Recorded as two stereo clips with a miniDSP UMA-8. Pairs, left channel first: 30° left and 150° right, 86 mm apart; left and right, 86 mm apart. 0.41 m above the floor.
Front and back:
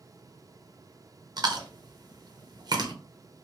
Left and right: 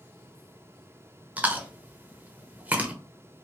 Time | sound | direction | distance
1.4 | chewing | 160° right | 0.5 m